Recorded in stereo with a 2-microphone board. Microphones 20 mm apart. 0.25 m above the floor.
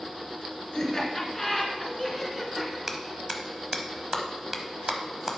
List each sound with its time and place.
0.7 s laughter: 30° left (ahead or behind), 2.5 m; by 2.8 s centre (ahead or behind), 2.5 m
2.9 s a clap: 15° right (ahead or behind), 0.9 m